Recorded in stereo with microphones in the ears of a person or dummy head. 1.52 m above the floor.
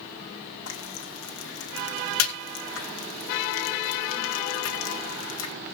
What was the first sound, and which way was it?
Frying, 80° left.